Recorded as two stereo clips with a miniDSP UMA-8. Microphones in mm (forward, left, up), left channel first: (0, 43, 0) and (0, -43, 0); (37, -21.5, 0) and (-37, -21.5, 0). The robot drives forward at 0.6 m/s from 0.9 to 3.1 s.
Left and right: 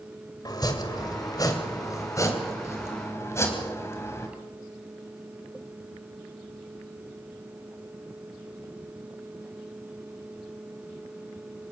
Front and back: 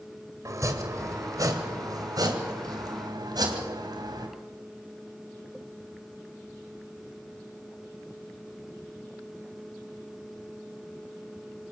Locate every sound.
0.5 s chopping: 135° left, 2 m; by 4.3 s 150° left, 3.5 m